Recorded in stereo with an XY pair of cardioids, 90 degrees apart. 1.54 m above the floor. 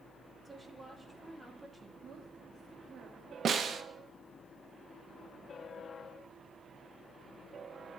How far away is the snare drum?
About 1.3 m.